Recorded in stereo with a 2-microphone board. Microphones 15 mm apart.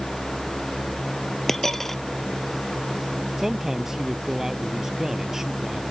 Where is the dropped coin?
25° left (ahead or behind).